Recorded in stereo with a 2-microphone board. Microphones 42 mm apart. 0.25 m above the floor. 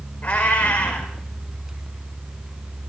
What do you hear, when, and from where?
0.2 s a cat meowing: 30° left (ahead or behind), 5 m